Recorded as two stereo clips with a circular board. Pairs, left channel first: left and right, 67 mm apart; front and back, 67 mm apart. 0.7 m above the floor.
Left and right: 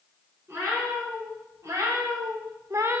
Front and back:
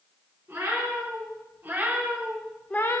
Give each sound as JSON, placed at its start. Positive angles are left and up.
{"t": 0.5, "sound": "a cat meowing", "azimuth_deg": -135, "distance_m": 4.0}